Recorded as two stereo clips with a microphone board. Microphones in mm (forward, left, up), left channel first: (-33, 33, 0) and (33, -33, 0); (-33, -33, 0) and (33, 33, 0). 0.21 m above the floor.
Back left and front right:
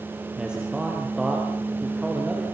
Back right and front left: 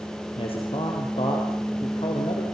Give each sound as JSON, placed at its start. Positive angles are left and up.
{"t": 0.4, "sound": "a man speaking", "azimuth_deg": -125, "distance_m": 4.5}